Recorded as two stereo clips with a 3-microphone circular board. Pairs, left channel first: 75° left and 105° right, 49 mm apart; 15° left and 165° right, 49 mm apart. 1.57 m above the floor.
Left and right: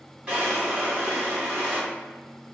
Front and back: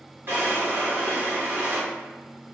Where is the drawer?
160° right, 1.4 m.